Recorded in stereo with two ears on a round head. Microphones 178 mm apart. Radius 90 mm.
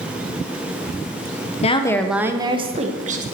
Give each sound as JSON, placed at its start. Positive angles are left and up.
{"t": 1.6, "sound": "a woman speaking", "side_deg": 35, "distance_m": 0.8}